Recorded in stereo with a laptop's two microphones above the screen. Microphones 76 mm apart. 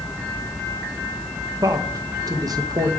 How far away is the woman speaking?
About 0.8 m.